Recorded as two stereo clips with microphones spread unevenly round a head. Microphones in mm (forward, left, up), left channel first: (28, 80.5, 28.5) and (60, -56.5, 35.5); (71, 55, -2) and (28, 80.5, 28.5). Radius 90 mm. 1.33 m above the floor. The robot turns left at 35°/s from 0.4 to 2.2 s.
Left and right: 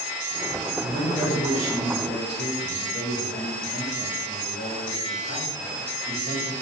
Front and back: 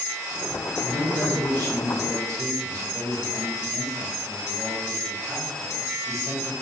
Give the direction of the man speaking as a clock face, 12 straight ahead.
5 o'clock.